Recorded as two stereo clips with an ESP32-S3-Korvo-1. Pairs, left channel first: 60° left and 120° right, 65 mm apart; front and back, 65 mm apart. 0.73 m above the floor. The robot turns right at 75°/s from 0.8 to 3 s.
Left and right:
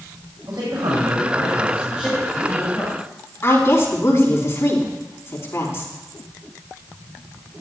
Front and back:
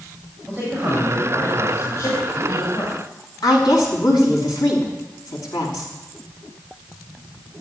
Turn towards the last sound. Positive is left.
turn(degrees=10)